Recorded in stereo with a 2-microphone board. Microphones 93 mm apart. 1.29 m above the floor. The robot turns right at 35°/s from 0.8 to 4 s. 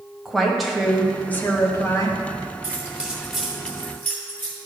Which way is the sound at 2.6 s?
25° right (ahead or behind).